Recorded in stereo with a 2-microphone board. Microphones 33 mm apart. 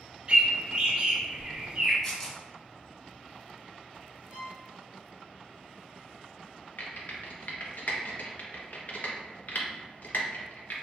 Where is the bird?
30° right (ahead or behind), 0.8 m.